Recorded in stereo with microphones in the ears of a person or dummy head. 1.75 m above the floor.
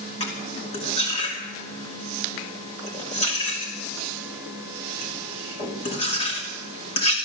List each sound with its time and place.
0.2 s cutlery clinking: 35° left (ahead or behind), 2.5 m